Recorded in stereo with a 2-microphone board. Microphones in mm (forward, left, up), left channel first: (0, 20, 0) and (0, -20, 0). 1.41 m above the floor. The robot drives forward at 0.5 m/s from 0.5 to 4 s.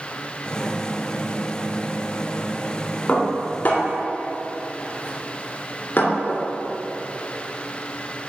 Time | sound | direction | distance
3.1 | dishes clattering | 45° left (ahead or behind) | 2.5 m